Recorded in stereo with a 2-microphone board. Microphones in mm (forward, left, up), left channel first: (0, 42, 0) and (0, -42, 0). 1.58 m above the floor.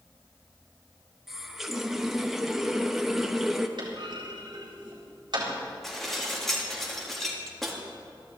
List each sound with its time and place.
1.3 s a running tap: 5° right (ahead or behind), 0.9 m
3.8 s a clunk: 60° right (ahead or behind), 4 m
5.8 s dishes clattering: centre (ahead or behind), 2 m